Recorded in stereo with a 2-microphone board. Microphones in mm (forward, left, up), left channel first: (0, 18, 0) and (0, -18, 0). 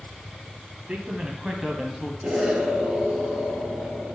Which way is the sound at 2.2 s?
15° right (ahead or behind).